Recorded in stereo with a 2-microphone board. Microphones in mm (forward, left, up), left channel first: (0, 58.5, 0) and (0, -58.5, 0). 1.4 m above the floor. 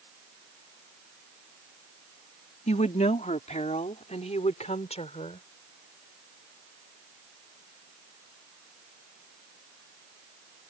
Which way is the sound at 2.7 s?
85° left.